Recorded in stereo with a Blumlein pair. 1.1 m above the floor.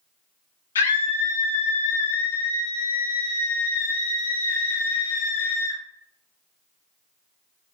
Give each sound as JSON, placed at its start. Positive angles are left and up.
{"t": 0.8, "sound": "a scream", "azimuth_deg": 65, "distance_m": 0.5}